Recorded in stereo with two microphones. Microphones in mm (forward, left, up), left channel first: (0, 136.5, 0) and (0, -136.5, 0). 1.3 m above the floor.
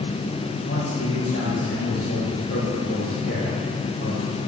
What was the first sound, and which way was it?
A man speaking, 55° left (ahead or behind).